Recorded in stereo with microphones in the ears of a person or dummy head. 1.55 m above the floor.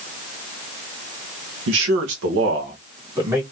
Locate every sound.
1.7 s a man speaking: 70° right (ahead or behind), 1.3 m; by 3.4 s 15° right (ahead or behind), 1.5 m